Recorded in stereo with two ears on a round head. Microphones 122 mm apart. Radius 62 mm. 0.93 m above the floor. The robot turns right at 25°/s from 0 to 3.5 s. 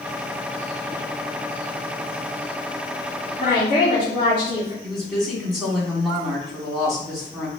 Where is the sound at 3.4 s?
45° left (ahead or behind), 1.6 m.